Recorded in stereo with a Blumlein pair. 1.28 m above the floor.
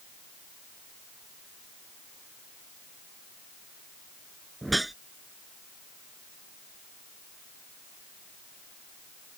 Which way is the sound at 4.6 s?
5° right.